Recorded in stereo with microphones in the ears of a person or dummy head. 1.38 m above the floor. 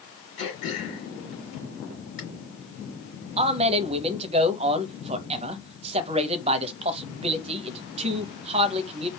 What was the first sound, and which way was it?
Throat clearing, 35° left (ahead or behind).